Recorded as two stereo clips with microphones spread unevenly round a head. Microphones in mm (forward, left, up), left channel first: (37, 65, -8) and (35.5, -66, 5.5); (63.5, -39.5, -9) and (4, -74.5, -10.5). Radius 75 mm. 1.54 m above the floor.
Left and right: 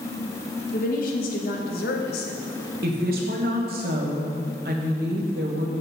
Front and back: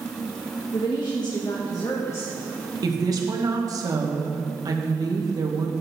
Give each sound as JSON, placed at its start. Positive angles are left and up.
{"t": 0.7, "sound": "a woman speaking", "azimuth_deg": 70, "distance_m": 1.6}
{"t": 2.8, "sound": "a woman speaking", "azimuth_deg": -120, "distance_m": 1.5}